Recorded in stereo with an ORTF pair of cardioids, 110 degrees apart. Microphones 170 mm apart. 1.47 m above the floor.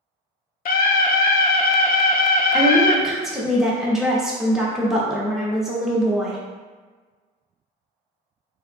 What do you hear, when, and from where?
0.7 s a scream: 60° left, 0.6 m
2.5 s a woman speaking: 5° right, 1.0 m